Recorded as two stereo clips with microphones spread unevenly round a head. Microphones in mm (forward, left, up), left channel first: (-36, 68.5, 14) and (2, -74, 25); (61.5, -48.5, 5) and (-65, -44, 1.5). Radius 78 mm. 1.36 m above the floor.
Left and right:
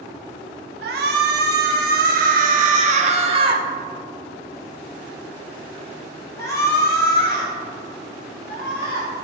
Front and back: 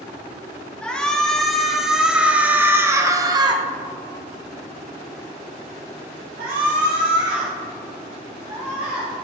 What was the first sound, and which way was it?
A shout, 85° right.